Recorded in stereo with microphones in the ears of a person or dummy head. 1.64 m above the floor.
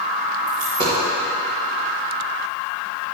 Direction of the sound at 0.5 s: 45° right (ahead or behind).